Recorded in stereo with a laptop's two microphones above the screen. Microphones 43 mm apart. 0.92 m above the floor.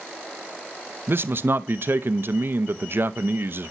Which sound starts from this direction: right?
A man speaking, at 1.1 s.